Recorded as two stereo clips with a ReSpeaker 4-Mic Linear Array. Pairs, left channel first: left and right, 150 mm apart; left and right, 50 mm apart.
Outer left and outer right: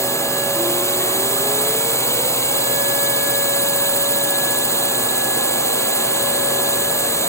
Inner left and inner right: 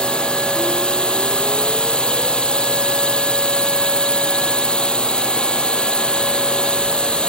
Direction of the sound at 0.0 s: 20° left (ahead or behind).